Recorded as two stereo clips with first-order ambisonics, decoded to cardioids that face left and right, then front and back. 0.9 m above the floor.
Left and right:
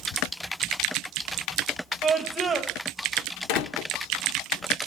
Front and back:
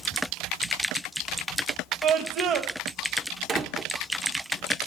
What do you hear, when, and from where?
2.0 s a scream: 160° right, 0.9 m
3.5 s a door slam: 110° left, 1.2 m